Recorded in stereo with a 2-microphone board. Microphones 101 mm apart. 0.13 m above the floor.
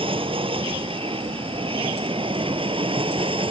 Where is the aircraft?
60° right (ahead or behind).